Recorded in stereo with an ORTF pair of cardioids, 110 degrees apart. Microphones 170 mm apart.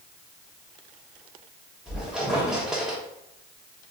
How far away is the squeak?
About 0.9 m.